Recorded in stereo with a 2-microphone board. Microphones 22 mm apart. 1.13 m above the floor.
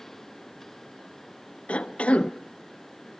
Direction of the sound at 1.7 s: 65° left (ahead or behind).